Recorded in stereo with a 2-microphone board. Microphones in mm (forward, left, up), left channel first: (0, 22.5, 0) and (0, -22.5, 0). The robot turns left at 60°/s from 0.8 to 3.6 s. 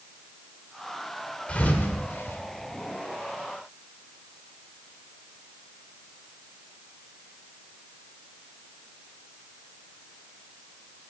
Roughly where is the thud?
Left.